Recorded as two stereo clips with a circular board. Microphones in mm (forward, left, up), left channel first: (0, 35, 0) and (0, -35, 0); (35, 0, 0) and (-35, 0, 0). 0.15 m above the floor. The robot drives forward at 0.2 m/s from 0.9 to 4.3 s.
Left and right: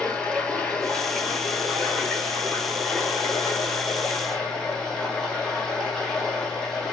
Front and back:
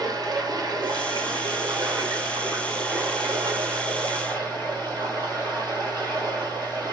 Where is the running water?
165° left, 0.7 m; by 6.9 s 175° left, 1.4 m.